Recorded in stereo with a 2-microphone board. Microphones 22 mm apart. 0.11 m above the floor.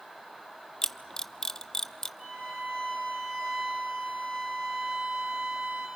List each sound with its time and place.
0.8 s a camera shutter: 25° left (ahead or behind), 0.5 m
2.2 s a violin: 70° right (ahead or behind), 7.5 m